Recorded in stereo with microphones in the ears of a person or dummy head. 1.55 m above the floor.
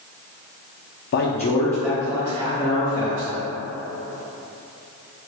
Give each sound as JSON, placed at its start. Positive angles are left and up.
{"t": 1.1, "sound": "a man speaking", "side_deg": 55, "distance_m": 0.5}